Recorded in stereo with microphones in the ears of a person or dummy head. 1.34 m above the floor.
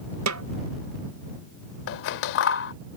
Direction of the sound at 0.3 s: 70° right (ahead or behind).